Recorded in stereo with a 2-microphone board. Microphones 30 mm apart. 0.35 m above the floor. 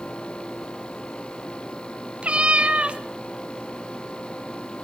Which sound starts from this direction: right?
A cat meowing, at 2.2 s.